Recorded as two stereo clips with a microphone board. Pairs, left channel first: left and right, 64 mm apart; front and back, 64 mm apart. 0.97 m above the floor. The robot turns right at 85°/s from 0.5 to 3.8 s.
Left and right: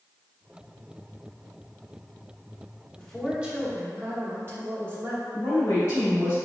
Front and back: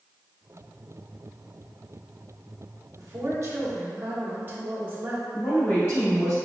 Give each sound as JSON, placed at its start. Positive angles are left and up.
{"t": 3.0, "sound": "a woman speaking", "azimuth_deg": 160, "distance_m": 1.2}
{"t": 5.3, "sound": "a woman speaking", "azimuth_deg": 45, "distance_m": 1.9}